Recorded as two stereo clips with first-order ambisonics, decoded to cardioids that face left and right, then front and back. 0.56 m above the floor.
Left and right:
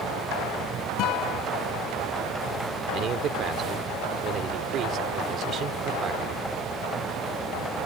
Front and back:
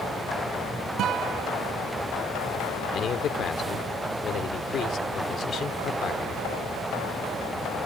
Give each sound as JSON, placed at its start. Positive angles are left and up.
{"t": 1.0, "sound": "a guitar", "azimuth_deg": 130}
{"t": 2.9, "sound": "a man speaking", "azimuth_deg": -45}